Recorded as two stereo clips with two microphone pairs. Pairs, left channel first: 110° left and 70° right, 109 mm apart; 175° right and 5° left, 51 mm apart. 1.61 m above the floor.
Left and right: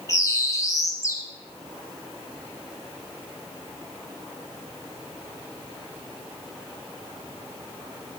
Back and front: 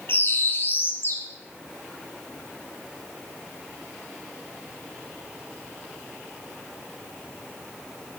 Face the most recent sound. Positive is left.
turn(degrees=165)